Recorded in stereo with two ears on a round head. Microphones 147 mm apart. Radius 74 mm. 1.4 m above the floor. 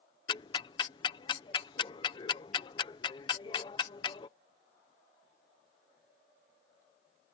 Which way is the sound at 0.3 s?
25° left (ahead or behind).